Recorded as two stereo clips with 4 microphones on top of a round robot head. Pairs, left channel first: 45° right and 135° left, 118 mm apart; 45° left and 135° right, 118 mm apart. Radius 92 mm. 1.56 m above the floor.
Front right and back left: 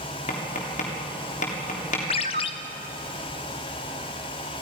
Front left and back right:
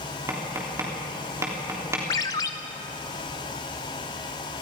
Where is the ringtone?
10° right, 0.5 m.